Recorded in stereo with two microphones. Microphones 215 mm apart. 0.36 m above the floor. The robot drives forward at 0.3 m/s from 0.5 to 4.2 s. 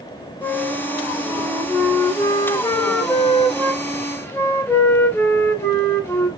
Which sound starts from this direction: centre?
A flute, at 0.4 s.